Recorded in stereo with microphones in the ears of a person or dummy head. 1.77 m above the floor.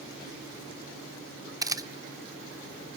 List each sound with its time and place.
1.6 s a camera shutter: 15° right (ahead or behind), 0.5 m